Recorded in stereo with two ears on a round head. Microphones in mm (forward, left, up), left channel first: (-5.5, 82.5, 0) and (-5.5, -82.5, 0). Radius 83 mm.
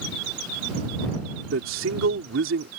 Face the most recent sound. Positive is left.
turn(degrees=-80)